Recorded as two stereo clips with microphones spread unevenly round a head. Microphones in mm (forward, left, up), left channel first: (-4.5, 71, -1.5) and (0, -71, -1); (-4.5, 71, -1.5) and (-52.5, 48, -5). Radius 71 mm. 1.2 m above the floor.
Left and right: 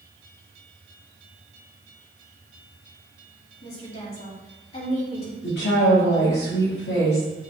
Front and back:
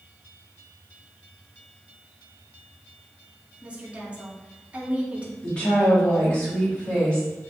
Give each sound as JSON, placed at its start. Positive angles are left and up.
{"t": 3.6, "sound": "a woman speaking", "azimuth_deg": 140, "distance_m": 2.5}
{"t": 5.4, "sound": "a woman speaking", "azimuth_deg": 95, "distance_m": 3.0}